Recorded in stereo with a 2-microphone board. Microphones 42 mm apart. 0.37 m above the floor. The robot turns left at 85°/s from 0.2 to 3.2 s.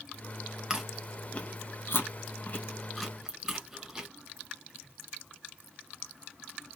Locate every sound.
0.7 s chewing: 20° right (ahead or behind), 0.9 m; by 4.1 s 10° right (ahead or behind), 0.9 m